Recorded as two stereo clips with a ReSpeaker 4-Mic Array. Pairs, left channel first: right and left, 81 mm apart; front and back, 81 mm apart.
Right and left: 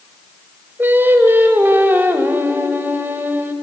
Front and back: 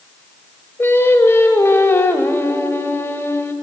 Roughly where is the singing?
Ahead left.